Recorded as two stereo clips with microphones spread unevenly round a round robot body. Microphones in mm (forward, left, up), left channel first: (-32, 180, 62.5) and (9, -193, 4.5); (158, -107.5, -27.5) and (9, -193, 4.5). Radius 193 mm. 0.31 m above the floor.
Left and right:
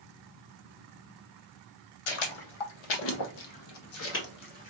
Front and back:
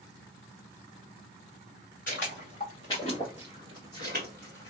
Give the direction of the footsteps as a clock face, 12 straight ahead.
9 o'clock.